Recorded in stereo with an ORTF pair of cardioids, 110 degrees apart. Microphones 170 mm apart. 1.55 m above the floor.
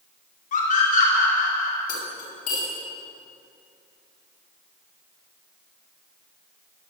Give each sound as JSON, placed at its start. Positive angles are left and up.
{"t": 0.5, "sound": "a scream", "azimuth_deg": 50, "distance_m": 5.0}
{"t": 1.9, "sound": "cutlery clinking", "azimuth_deg": 60, "distance_m": 6.5}